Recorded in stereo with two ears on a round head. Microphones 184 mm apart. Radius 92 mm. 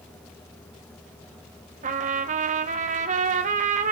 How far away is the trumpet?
About 0.8 m.